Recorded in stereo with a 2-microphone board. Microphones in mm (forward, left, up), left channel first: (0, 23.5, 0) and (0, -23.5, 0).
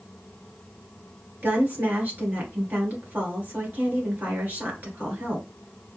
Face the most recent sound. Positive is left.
turn(degrees=-45)  # may be behind; listen again after turning